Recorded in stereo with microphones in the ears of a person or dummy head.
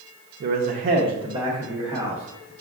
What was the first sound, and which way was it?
A man speaking, 50° right (ahead or behind).